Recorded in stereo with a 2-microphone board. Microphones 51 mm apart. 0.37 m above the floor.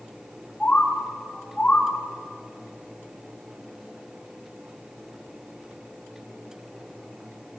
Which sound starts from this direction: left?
A bird, at 0.6 s.